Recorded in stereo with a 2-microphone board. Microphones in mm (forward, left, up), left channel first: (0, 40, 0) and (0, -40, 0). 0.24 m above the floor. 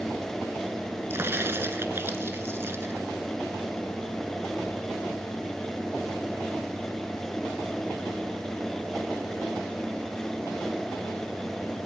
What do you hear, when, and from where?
1.1 s a crack: 30° right (ahead or behind), 1.0 m